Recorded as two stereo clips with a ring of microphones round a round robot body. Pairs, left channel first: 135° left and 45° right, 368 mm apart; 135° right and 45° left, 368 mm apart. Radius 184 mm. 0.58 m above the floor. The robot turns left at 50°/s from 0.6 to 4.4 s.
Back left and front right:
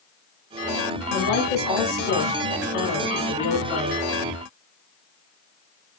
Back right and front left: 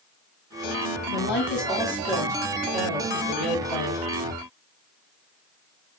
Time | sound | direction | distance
1.1 | a woman speaking | 175° right | 1.2 m